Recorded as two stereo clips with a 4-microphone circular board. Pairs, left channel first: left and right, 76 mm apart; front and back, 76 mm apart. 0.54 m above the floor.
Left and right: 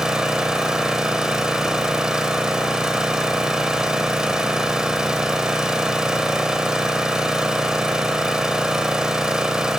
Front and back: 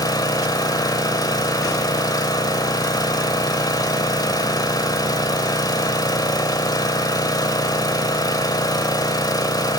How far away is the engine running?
About 1.6 m.